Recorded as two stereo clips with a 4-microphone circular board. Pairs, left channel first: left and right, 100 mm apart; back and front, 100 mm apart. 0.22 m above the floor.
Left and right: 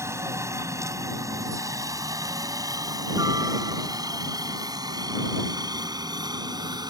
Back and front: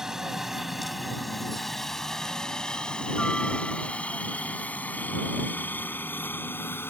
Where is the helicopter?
80° right; by 6.9 s 120° right.